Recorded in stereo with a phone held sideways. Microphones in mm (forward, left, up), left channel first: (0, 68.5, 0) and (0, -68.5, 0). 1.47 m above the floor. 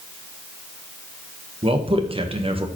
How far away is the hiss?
No hiss in this recording.